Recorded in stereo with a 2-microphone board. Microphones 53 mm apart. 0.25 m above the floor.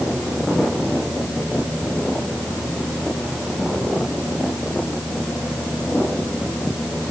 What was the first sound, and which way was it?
Only background noise.